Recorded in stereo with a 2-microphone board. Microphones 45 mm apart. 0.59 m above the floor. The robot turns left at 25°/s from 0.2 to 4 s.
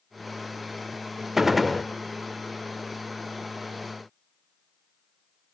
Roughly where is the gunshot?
Centre.